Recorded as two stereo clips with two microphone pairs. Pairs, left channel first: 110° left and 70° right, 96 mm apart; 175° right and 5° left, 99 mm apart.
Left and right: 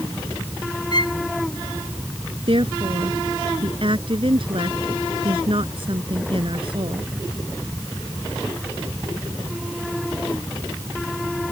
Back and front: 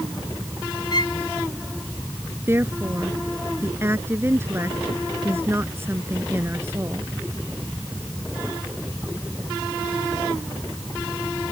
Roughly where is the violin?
Behind left.